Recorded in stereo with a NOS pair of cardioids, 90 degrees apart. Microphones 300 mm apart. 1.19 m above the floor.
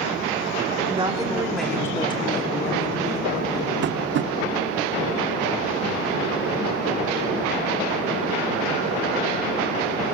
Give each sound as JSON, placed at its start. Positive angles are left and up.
{"t": 0.9, "sound": "a woman speaking", "azimuth_deg": -20, "distance_m": 3.0}
{"t": 3.8, "sound": "tapping", "azimuth_deg": -40, "distance_m": 0.6}